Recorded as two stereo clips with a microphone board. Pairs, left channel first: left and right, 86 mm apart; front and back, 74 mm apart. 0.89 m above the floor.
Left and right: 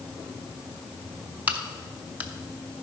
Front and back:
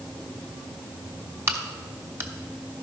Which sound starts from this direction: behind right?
A crack, at 1.5 s.